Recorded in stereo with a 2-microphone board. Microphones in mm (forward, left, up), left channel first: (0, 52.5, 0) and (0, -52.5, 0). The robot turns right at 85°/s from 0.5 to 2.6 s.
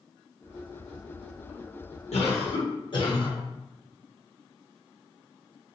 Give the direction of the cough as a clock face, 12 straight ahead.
9 o'clock.